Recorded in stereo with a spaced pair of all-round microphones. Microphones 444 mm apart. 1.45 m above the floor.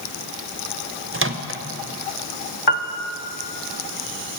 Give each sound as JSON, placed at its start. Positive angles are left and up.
{"t": 1.1, "sound": "a microwave", "side_deg": -30, "distance_m": 0.7}
{"t": 2.7, "sound": "a piano", "side_deg": 65, "distance_m": 0.7}